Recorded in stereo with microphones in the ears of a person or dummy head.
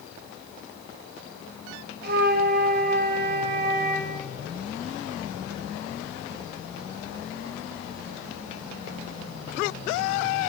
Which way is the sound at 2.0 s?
50° right (ahead or behind).